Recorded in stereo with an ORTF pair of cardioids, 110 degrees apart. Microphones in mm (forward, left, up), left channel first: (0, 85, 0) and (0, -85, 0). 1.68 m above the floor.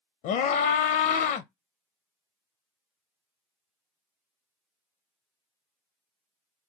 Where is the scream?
70° left, 0.6 m.